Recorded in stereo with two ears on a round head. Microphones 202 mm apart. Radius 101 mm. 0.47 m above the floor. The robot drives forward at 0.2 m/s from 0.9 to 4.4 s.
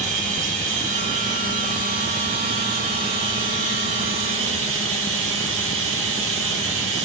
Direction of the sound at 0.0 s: 35° right (ahead or behind).